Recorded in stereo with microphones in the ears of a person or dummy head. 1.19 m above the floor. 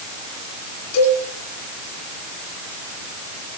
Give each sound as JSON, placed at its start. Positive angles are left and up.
{"t": 0.9, "sound": "a cowbell", "side_deg": 85, "distance_m": 10.0}